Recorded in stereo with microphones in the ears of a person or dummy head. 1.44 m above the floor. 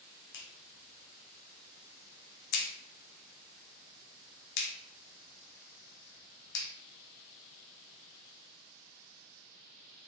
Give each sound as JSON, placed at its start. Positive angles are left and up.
{"t": 0.3, "sound": "a clap", "side_deg": 60, "distance_m": 0.7}